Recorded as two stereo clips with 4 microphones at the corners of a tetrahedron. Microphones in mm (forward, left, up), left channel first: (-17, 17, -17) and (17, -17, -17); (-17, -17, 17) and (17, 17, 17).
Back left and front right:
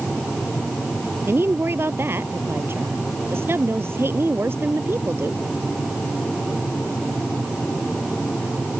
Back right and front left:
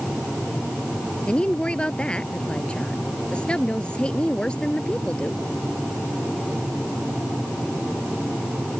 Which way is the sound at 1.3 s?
70° right.